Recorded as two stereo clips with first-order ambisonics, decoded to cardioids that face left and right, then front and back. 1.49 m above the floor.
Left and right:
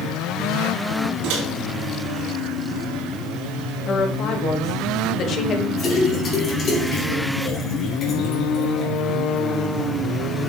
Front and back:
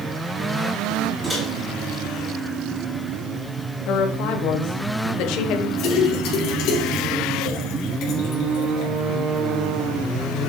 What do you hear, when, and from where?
1.2 s a microwave: 100° right, 2.5 m
3.9 s a woman speaking: 35° left, 1.2 m
5.8 s a splash: 30° left, 3 m